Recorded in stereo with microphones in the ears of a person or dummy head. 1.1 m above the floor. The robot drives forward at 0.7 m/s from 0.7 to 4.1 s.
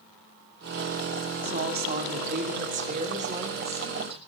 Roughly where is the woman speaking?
Right.